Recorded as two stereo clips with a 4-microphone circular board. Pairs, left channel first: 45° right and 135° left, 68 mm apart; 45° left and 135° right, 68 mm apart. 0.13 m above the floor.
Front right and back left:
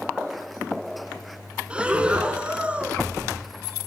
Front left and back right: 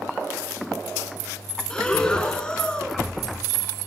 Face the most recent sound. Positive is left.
turn(degrees=95)